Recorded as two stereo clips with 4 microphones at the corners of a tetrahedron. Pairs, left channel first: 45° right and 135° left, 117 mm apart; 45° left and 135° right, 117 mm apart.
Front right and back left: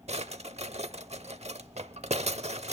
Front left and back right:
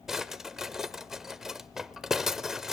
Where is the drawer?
140° left, 0.7 m.